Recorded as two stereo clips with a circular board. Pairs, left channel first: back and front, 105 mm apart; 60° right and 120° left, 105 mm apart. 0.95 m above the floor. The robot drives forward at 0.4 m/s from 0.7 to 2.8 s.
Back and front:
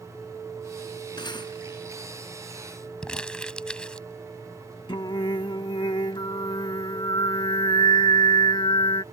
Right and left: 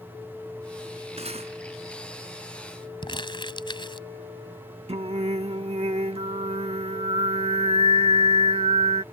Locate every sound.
1.2 s cutlery clinking: 135° left
3.0 s crumpling: 100° right
4.9 s singing: 140° left